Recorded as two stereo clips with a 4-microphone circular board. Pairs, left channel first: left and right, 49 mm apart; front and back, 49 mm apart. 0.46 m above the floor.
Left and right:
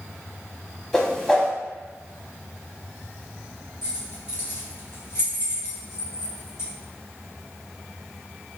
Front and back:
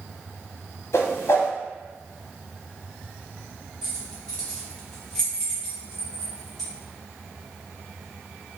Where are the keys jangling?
75° left, 1.5 m.